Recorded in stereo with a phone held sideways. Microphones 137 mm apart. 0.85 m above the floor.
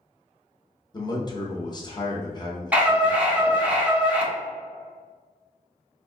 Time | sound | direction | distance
0.9 | a man speaking | 30° left (ahead or behind) | 0.7 m
2.7 | a scream | 10° right (ahead or behind) | 1.1 m